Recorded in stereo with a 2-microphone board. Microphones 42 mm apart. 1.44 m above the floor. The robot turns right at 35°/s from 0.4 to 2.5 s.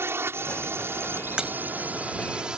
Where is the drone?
75° right (ahead or behind); by 2.6 s 20° right (ahead or behind).